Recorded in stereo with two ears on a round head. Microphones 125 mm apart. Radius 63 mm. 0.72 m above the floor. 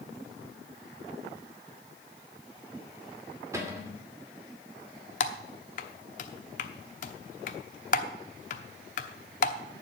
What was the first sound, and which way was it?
A cupboard door, 20° right (ahead or behind).